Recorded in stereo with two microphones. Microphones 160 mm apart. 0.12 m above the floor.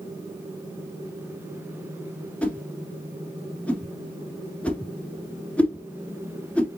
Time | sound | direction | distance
2.4 | a whoosh | 10° left (ahead or behind) | 1.5 m